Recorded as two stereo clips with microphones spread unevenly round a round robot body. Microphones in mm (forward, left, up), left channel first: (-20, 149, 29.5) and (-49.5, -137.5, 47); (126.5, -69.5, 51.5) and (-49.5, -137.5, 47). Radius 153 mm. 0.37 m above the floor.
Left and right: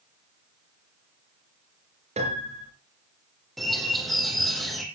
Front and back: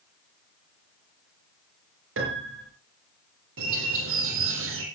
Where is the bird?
175° left, 3.5 m.